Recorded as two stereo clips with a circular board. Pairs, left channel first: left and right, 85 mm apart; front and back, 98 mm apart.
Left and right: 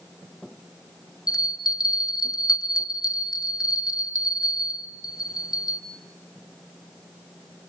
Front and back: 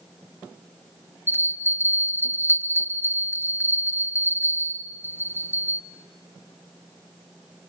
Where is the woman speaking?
I don't hear a woman speaking.